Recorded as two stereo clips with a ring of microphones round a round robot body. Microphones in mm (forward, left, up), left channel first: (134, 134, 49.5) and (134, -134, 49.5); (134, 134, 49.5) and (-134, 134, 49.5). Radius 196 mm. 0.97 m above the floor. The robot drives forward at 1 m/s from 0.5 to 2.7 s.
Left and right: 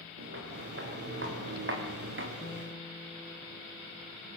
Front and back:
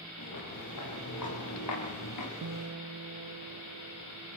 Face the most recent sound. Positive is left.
turn(degrees=175)